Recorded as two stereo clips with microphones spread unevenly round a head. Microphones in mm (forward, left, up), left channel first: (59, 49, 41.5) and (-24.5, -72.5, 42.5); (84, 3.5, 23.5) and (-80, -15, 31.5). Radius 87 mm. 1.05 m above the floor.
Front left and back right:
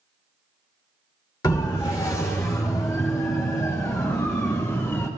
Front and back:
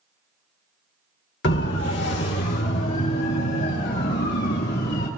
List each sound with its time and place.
1.4 s a siren: 10° right, 2.5 m; by 5.1 s 15° right, 5 m